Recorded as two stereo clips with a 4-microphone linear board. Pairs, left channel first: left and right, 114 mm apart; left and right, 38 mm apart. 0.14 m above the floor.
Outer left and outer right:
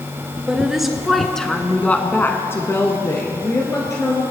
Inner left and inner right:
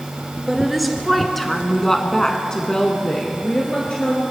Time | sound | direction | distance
0.5 | a woman speaking | 5° right (ahead or behind) | 1.8 m